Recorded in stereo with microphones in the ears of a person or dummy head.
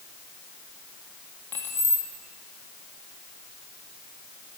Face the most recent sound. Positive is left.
turn(degrees=10)  # may be behind; listen again after turning